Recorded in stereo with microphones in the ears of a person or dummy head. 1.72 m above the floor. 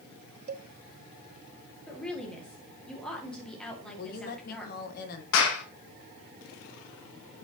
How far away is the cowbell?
About 0.5 m.